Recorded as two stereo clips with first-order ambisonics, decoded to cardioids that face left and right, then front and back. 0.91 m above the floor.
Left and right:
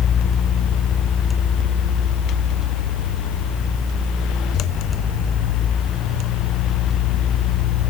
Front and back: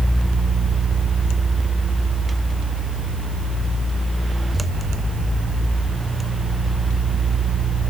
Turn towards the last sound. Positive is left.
No sound to turn to.